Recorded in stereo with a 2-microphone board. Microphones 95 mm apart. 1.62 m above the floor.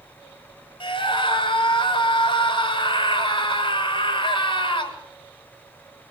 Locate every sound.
0.8 s a scream: 60° left (ahead or behind), 6.5 m